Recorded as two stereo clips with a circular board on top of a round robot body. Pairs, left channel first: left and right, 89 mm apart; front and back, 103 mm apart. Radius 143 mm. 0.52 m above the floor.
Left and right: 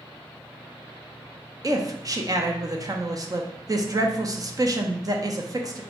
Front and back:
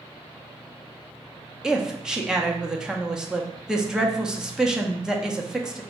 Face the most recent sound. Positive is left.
turn(degrees=-100)